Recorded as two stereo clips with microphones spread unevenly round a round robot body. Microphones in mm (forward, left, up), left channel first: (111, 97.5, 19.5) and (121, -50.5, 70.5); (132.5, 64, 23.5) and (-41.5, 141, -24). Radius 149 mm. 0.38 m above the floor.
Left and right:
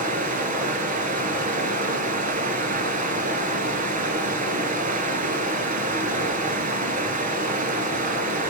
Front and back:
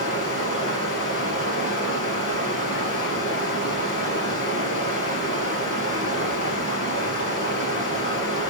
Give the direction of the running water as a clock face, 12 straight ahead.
2 o'clock.